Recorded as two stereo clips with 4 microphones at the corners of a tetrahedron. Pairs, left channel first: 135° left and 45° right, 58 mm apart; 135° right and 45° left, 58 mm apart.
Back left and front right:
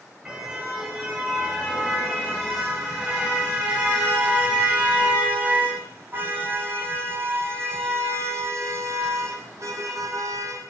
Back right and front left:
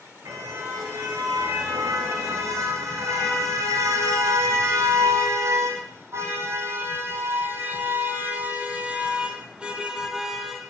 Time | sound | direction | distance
0.2 | a car horn | 30° left | 6 m